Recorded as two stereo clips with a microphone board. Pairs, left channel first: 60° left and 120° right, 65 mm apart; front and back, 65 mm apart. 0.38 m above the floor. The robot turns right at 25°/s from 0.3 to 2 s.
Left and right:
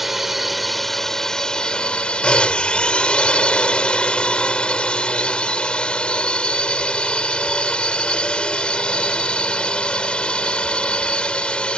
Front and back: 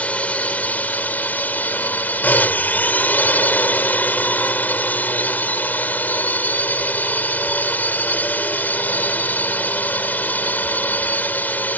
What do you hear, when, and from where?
0.0 s a drone: 35° right; by 11.8 s 5° left